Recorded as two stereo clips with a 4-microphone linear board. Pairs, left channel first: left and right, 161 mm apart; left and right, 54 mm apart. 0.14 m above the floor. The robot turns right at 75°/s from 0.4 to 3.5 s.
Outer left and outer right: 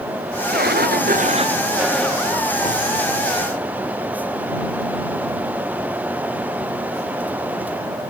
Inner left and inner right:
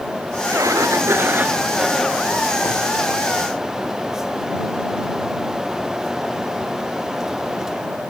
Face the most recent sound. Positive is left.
turn(degrees=120)